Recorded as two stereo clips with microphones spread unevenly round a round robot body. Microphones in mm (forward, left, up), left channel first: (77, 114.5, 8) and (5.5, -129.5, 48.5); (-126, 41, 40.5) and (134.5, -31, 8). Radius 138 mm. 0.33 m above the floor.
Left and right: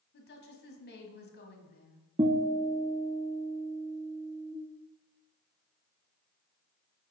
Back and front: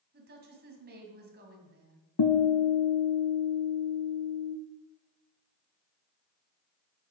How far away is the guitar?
About 0.9 m.